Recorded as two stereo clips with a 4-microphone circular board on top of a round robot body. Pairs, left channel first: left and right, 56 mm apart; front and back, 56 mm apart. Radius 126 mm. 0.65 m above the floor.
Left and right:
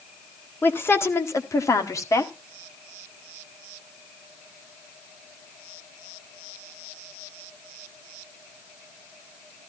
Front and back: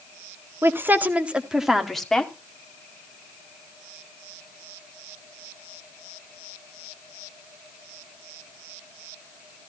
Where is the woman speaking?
140° left, 1.8 m; by 2.3 s 75° left, 2 m.